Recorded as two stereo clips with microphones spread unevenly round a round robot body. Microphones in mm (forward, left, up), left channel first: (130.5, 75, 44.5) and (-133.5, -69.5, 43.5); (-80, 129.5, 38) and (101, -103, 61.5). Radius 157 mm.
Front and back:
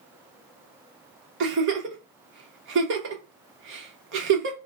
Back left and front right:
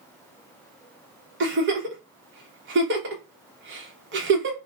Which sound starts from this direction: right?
A giggle, at 1.4 s.